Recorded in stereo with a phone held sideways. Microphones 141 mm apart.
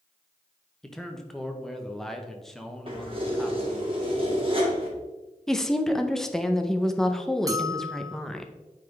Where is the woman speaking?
5° left (ahead or behind), 0.6 m.